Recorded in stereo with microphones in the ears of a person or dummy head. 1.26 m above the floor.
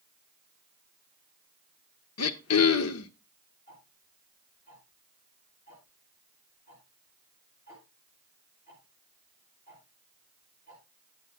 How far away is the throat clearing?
About 1.2 m.